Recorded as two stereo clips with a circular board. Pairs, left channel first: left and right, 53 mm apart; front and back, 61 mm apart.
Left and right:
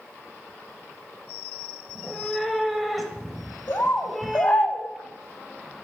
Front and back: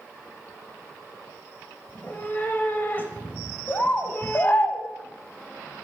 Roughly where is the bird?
Ahead left.